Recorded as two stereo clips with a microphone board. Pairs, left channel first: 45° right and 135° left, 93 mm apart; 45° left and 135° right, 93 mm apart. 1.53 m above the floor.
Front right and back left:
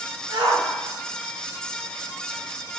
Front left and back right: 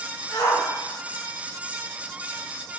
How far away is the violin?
I don't hear a violin.